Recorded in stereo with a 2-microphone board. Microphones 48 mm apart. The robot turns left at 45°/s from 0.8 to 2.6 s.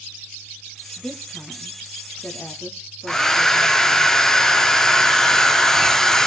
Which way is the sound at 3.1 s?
10° left (ahead or behind).